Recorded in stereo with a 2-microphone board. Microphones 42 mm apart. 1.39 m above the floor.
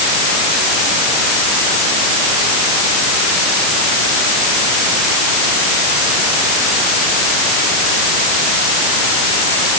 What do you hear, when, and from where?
Only background noise.